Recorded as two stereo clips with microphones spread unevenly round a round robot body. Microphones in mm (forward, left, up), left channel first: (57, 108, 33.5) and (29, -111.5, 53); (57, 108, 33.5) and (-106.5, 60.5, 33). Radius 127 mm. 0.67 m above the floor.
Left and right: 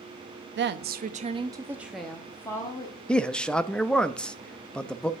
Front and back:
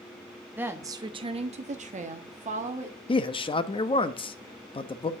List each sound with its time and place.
0.6 s a woman speaking: 90° right, 0.8 m; by 3.0 s 150° left, 1.4 m
3.1 s a man speaking: 10° left, 0.7 m